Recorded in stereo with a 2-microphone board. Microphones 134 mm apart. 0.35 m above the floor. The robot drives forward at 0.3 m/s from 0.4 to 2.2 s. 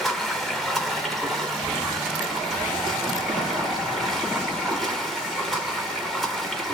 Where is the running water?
Centre (ahead or behind), 1.1 m.